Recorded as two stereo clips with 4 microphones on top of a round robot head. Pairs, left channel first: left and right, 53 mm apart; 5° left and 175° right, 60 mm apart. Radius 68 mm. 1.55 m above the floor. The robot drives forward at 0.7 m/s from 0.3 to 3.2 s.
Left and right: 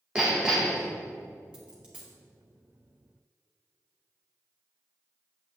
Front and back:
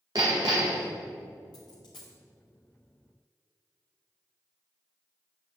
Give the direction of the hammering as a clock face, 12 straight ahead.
6 o'clock.